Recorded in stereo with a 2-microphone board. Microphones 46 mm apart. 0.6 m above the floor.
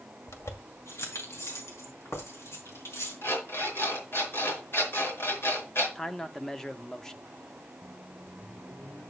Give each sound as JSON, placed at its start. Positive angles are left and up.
{"t": 0.3, "sound": "keys jangling", "side_deg": 80, "distance_m": 1.7}
{"t": 3.2, "sound": "an alarm clock", "side_deg": 60, "distance_m": 4.5}
{"t": 6.0, "sound": "a man speaking", "side_deg": 10, "distance_m": 0.8}
{"t": 7.8, "sound": "a microwave", "side_deg": 75, "distance_m": 8.0}